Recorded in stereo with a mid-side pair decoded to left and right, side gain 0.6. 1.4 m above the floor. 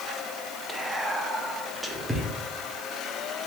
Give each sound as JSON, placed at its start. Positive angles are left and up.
{"t": 0.7, "sound": "whispering", "azimuth_deg": -10, "distance_m": 0.7}